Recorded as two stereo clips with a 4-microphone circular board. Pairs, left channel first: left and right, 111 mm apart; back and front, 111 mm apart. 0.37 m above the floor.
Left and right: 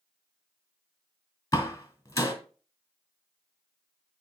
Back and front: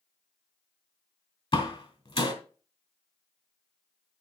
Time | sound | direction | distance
1.5 | a door slam | 150° left | 2.0 m